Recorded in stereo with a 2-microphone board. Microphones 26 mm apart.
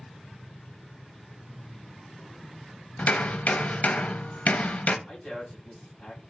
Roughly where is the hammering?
Left.